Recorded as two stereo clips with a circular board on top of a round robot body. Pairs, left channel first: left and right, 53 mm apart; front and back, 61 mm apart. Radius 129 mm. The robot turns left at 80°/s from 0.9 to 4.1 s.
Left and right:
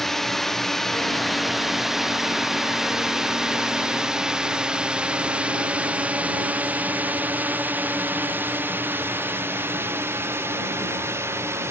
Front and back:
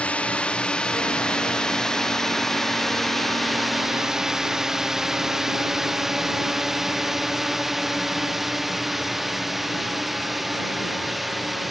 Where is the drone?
15° left; by 11.7 s 90° right.